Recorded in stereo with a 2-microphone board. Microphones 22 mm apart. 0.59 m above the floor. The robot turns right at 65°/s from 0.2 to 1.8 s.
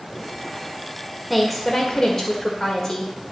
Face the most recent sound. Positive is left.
turn(degrees=30)